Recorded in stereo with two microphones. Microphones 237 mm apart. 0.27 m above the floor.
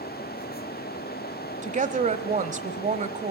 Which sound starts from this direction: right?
A woman speaking, at 1.6 s.